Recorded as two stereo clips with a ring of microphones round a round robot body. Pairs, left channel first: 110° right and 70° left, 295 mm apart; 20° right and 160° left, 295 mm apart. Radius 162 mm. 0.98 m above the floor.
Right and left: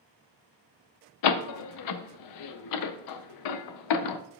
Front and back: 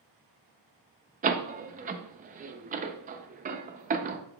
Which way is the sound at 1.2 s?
135° right.